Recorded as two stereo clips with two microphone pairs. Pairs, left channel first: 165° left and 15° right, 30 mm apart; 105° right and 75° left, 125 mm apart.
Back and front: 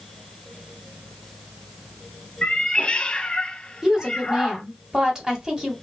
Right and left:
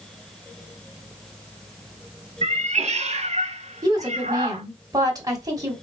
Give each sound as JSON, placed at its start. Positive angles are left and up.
{"t": 2.4, "sound": "a cat meowing", "azimuth_deg": 105, "distance_m": 0.7}
{"t": 3.8, "sound": "a woman speaking", "azimuth_deg": 30, "distance_m": 1.3}